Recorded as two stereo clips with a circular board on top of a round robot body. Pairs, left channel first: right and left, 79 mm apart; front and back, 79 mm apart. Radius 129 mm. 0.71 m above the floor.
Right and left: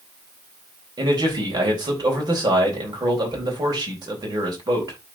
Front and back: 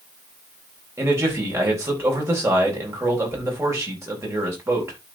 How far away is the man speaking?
About 4 m.